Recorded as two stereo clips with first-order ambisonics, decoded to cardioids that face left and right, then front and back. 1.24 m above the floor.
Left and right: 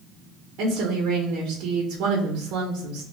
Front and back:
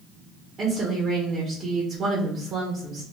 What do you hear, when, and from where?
0.6 s a woman speaking: 115° right, 0.8 m